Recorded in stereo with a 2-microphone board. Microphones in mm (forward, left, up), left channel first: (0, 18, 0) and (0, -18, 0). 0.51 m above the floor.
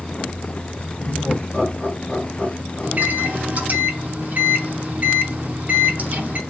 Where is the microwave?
45° right (ahead or behind), 0.7 m.